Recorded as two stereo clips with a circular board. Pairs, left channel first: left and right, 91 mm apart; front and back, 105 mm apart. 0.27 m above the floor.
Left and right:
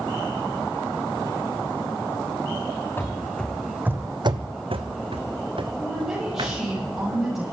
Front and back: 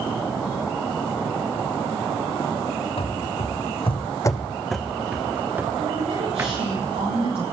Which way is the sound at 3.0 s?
25° left.